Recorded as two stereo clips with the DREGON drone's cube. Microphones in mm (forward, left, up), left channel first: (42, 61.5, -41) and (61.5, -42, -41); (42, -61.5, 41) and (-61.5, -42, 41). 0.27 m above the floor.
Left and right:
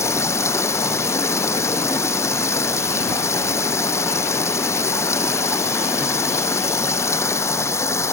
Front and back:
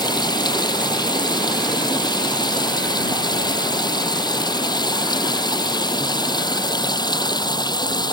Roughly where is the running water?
Ahead left.